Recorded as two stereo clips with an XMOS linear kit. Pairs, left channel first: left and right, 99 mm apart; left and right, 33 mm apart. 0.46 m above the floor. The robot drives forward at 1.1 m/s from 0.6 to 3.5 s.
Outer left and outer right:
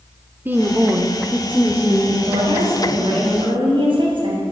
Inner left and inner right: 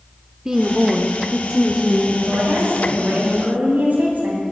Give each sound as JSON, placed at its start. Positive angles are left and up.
{"t": 0.5, "sound": "a woman speaking", "side_deg": -20, "distance_m": 0.9}
{"t": 2.2, "sound": "a woman speaking", "side_deg": -70, "distance_m": 3.0}